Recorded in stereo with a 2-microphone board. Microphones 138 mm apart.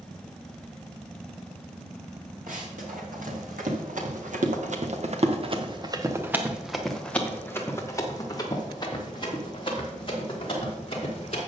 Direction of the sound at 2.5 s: 85° right.